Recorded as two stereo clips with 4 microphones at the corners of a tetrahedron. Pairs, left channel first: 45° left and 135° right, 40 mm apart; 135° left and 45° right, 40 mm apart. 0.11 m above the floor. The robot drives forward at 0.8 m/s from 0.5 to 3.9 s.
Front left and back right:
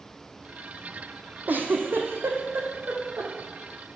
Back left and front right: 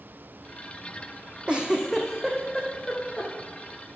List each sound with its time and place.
1.5 s a giggle: 105° right, 0.8 m; by 3.3 s 155° right, 1.9 m